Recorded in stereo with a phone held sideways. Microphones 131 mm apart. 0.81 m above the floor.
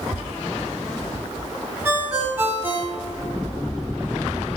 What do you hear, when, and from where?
1.9 s a ringtone: 15° right (ahead or behind), 1.8 m